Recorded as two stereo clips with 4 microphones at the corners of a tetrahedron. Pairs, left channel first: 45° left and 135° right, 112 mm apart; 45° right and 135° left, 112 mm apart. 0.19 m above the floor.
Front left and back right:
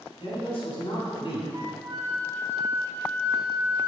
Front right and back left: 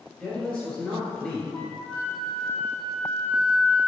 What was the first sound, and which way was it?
A man speaking, 45° left.